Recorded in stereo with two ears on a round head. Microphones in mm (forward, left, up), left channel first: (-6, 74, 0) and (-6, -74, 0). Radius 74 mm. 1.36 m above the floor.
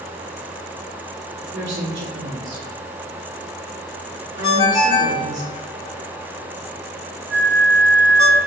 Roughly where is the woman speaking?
Right.